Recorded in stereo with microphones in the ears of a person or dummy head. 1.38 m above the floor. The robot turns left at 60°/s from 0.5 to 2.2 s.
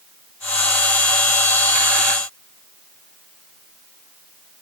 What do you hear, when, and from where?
Only background noise.